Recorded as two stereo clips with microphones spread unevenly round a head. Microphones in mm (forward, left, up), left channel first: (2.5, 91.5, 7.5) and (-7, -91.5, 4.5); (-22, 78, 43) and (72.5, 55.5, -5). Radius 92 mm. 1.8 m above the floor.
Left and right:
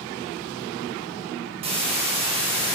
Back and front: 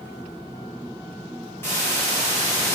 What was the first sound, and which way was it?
A hiss, 150° right.